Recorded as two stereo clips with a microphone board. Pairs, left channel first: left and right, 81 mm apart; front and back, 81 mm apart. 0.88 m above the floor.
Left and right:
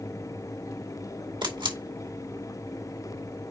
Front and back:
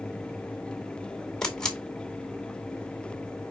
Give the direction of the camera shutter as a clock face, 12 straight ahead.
3 o'clock.